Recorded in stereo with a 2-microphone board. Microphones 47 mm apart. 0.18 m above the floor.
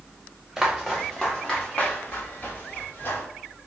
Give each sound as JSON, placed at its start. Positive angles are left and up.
{"t": 0.6, "sound": "footsteps", "side_deg": -5, "distance_m": 1.5}